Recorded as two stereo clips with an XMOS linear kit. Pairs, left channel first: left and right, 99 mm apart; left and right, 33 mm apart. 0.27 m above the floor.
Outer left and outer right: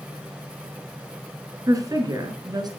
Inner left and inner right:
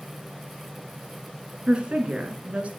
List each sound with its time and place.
1.7 s a woman speaking: 35° right (ahead or behind), 3 m; by 2.7 s 45° right (ahead or behind), 3 m